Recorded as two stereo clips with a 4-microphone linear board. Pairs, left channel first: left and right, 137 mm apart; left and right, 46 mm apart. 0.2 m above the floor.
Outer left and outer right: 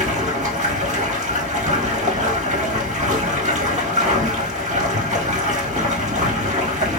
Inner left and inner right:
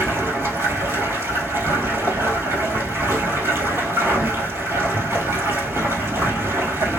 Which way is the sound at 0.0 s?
55° right (ahead or behind).